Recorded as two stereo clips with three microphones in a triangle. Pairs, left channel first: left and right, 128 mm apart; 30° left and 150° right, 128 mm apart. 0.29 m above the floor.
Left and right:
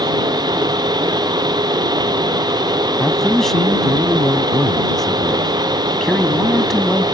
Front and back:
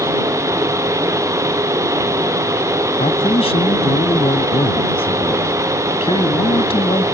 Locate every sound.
3.0 s a man speaking: 5° left